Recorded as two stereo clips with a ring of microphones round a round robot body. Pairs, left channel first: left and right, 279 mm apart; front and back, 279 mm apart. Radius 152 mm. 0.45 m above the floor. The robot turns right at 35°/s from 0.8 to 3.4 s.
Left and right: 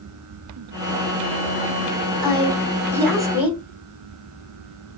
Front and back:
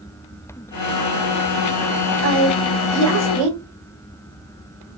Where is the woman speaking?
145° left, 2 m; by 3.6 s 175° right, 2 m.